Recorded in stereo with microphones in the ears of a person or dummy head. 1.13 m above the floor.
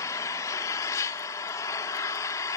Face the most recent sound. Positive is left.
turn(degrees=15)  # may be behind; listen again after turning